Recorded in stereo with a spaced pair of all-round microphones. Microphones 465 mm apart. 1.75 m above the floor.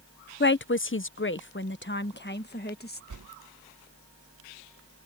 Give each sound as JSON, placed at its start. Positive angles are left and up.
{"t": 0.4, "sound": "a woman speaking", "side_deg": 25}
{"t": 3.1, "sound": "a whoosh", "side_deg": -40}